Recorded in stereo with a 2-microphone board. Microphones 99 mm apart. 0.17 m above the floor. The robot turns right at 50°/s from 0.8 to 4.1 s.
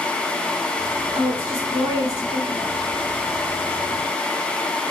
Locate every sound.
1.1 s a woman speaking: 155° right, 1.7 m; by 2.7 s 75° right, 1.7 m